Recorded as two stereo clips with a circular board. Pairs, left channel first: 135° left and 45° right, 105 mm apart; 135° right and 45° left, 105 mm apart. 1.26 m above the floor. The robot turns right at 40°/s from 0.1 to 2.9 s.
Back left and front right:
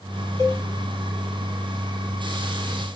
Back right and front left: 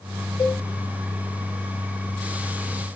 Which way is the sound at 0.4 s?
105° right.